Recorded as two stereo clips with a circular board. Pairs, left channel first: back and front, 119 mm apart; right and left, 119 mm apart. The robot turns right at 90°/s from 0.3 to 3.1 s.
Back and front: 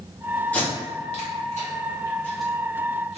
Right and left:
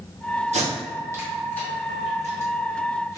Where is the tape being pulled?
100° left, 1.1 m; by 3.2 s 25° right, 1.1 m.